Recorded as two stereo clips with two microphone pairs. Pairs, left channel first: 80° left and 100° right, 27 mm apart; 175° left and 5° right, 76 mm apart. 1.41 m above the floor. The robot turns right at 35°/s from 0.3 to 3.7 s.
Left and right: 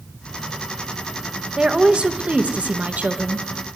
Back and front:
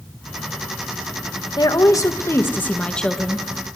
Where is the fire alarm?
No fire alarm in this recording.